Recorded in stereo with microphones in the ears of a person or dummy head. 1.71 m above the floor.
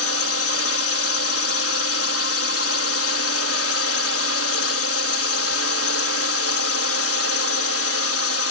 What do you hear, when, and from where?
0.0 s a drone: 80° left